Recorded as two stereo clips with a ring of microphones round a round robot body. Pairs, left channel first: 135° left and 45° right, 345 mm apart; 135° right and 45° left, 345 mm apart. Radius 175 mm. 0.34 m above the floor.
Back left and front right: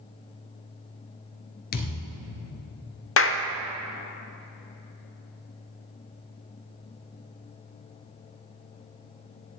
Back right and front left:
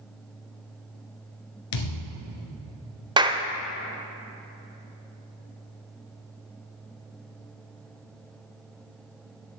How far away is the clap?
About 0.7 m.